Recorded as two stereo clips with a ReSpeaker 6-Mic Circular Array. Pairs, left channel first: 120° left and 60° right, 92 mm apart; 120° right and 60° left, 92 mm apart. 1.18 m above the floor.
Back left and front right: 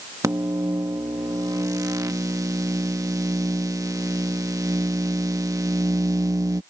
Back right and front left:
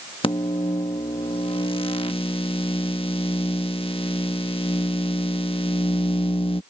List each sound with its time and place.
0.2 s a microwave: 110° right